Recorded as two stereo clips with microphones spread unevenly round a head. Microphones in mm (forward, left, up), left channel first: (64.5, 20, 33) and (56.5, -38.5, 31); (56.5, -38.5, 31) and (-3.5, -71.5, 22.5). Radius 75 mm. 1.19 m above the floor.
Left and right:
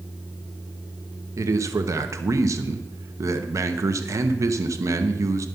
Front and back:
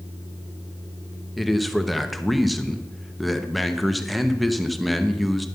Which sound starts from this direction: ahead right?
A man speaking, at 1.4 s.